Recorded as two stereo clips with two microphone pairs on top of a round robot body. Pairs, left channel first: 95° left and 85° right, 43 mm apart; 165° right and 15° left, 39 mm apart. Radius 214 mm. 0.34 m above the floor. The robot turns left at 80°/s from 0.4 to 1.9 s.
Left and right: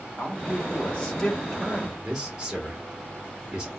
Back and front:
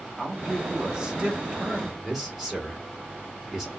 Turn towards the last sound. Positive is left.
turn(degrees=-45)